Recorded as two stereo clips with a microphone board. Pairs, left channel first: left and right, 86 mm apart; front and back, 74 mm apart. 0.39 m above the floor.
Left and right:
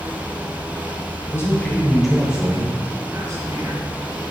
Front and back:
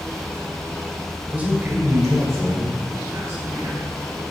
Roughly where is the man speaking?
Behind left.